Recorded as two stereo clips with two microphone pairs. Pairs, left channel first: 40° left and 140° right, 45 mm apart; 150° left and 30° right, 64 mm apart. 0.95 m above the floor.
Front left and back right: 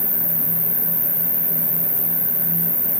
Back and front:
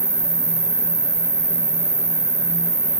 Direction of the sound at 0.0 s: 80° right.